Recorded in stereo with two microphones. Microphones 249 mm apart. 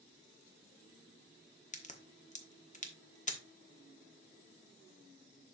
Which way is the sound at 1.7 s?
30° left (ahead or behind).